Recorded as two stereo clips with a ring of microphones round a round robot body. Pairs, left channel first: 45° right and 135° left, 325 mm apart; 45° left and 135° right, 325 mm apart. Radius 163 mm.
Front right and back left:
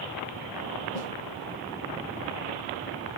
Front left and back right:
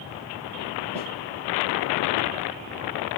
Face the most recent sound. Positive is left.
turn(degrees=-65)